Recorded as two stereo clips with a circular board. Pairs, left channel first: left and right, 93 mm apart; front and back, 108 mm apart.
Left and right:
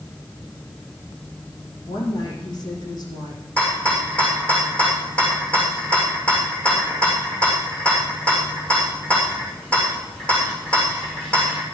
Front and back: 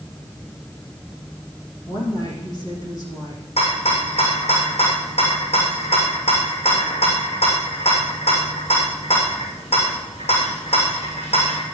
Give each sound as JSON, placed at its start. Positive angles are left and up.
{"t": 1.9, "sound": "a woman speaking", "azimuth_deg": 50, "distance_m": 7.5}
{"t": 3.6, "sound": "a rattle", "azimuth_deg": 10, "distance_m": 7.0}